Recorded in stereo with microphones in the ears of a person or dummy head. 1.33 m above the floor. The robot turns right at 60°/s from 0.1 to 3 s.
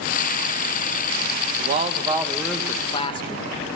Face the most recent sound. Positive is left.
turn(degrees=30)